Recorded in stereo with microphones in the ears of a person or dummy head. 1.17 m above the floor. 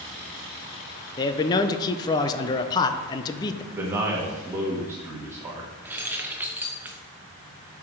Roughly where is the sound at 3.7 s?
Centre.